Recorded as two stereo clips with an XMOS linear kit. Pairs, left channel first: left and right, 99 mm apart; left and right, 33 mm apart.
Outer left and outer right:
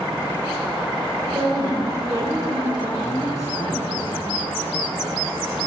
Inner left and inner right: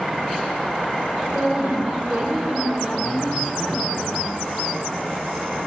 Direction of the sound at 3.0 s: 35° left (ahead or behind).